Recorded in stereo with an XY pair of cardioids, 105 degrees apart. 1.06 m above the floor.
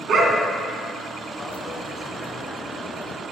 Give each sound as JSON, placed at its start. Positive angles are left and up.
{"t": 0.1, "sound": "a dog barking", "azimuth_deg": -65, "distance_m": 3.0}
{"t": 1.4, "sound": "a dropped coin", "azimuth_deg": 20, "distance_m": 2.0}